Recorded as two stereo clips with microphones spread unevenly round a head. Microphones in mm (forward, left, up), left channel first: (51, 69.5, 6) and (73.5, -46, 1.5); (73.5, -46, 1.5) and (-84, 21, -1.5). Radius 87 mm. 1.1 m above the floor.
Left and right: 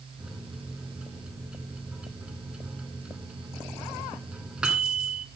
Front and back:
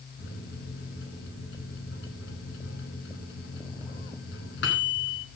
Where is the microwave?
5° left, 5 m.